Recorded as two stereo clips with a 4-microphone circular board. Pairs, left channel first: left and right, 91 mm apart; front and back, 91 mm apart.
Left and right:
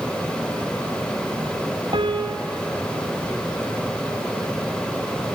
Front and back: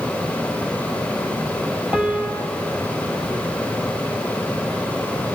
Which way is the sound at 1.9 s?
105° right.